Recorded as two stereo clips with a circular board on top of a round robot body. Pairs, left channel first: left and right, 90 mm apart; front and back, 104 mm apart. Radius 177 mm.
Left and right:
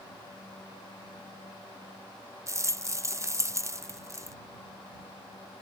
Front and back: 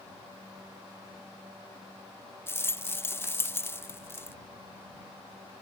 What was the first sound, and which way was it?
A rattle, 55° right.